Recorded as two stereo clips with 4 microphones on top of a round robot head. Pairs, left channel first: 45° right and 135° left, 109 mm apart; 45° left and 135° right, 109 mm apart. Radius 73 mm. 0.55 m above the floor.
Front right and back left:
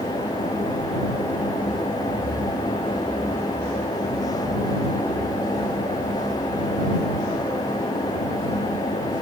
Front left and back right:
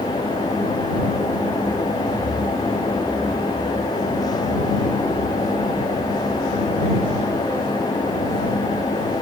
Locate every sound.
Only background noise.